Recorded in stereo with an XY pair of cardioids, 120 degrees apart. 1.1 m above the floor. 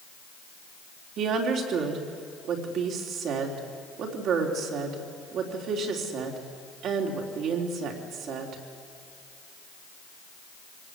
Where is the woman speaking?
70° right, 3.5 m.